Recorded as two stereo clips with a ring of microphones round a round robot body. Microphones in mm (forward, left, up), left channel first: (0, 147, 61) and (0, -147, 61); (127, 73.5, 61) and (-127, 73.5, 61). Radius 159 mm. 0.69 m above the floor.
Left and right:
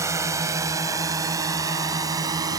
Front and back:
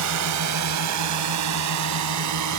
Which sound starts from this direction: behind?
A drone, at 0.0 s.